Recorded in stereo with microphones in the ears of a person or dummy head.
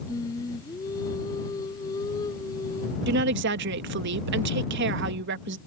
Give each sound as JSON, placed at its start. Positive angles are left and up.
{"t": 0.1, "sound": "singing", "side_deg": 20}
{"t": 3.1, "sound": "a woman speaking", "side_deg": -55}